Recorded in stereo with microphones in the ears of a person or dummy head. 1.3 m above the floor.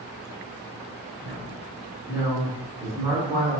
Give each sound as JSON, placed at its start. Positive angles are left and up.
{"t": 1.2, "sound": "a woman speaking", "side_deg": -15, "distance_m": 1.5}